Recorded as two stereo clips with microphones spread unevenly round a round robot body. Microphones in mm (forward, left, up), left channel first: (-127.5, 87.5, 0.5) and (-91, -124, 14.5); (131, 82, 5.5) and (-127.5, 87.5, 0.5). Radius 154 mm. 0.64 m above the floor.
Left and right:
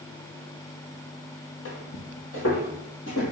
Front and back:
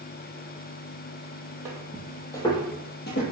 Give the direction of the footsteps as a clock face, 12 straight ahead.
9 o'clock.